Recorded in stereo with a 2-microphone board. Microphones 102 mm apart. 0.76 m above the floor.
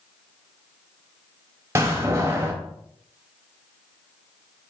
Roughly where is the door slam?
Right.